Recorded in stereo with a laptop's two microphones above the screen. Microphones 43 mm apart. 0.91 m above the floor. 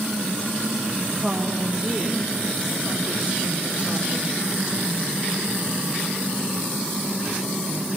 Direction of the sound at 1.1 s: 25° right (ahead or behind).